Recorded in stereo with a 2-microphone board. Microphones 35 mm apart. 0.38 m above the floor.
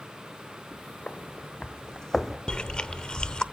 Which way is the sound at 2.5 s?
25° left (ahead or behind).